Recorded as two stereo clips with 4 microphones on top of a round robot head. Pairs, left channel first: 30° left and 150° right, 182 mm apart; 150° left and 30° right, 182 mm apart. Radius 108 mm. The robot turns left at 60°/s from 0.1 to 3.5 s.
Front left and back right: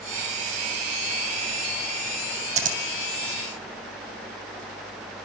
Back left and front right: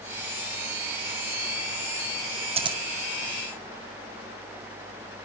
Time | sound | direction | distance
2.6 | scissors | 90° right | 2.5 m